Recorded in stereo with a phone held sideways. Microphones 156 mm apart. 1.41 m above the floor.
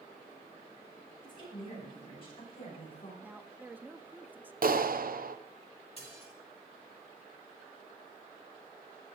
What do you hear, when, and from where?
1.2 s a woman speaking: 35° left (ahead or behind), 8.5 m; by 3.1 s 40° left (ahead or behind), 6.5 m
3.2 s a woman speaking: 10° right (ahead or behind), 0.8 m
4.6 s a clap: 70° right (ahead or behind), 0.7 m
6.0 s dishes clattering: 40° left (ahead or behind), 2.5 m